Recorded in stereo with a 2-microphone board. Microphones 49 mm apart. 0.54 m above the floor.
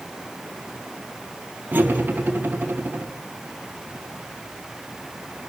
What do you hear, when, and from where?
1.7 s cutlery clinking: 40° right (ahead or behind), 2.5 m